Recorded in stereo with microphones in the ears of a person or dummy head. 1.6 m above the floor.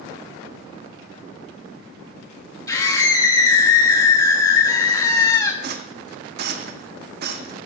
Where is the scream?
20° left (ahead or behind), 2.5 m.